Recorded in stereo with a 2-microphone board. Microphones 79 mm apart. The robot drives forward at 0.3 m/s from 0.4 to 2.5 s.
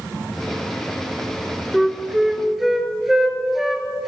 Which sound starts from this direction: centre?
A flute, at 1.7 s.